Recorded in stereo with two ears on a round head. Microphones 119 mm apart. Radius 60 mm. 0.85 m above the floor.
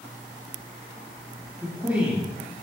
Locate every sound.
1.6 s a man speaking: 15° right (ahead or behind), 1.4 m